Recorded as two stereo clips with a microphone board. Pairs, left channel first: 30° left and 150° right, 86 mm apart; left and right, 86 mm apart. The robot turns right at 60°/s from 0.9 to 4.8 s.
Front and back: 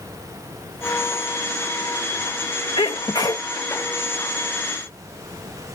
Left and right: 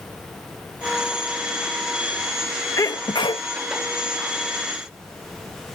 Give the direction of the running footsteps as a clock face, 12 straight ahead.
I don't hear running footsteps.